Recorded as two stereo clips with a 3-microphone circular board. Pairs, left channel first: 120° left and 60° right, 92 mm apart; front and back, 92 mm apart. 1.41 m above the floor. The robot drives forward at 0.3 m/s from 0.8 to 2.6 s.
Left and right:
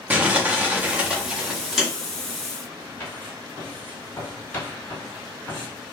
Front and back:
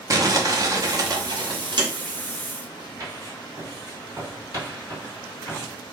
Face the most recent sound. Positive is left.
turn(degrees=175)